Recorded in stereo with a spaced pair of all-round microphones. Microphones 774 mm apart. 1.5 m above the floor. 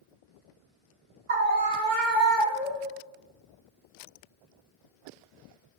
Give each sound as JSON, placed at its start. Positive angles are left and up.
{"t": 1.3, "sound": "a scream", "side_deg": -45, "distance_m": 0.8}